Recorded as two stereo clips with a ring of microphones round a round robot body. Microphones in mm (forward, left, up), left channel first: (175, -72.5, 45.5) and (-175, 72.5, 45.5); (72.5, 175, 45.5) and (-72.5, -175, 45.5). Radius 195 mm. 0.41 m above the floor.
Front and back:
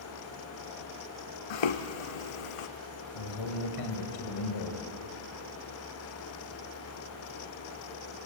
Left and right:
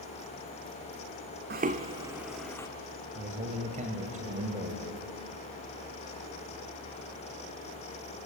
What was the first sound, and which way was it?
Footsteps, 45° right.